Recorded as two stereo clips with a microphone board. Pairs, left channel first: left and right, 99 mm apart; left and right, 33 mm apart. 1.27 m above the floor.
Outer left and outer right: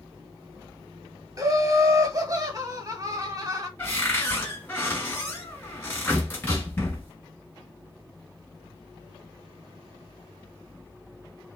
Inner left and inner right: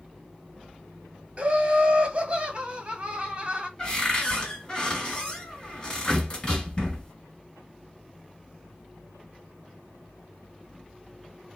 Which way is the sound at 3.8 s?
20° left (ahead or behind).